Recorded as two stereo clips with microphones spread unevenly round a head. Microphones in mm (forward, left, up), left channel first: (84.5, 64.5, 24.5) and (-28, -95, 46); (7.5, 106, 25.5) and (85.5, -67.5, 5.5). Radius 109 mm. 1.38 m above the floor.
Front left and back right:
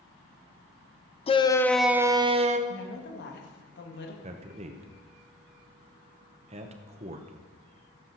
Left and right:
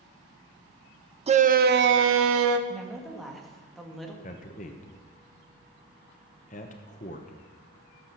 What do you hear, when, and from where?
1.3 s a shout: 5° right, 0.9 m; by 2.6 s 75° right, 1.1 m
2.7 s a woman speaking: 25° left, 2.5 m
4.2 s a man speaking: 175° left, 1.0 m